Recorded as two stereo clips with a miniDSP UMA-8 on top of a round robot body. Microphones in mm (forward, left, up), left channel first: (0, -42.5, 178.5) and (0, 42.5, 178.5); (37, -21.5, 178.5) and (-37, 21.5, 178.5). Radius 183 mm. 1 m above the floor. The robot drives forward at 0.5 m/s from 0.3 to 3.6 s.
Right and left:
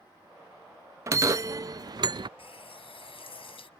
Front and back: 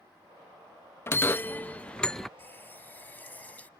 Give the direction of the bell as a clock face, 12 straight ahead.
11 o'clock.